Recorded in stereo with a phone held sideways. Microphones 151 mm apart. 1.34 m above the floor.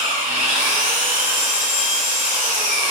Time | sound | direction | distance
0.0 | an engine running | 5° right (ahead or behind) | 1.5 m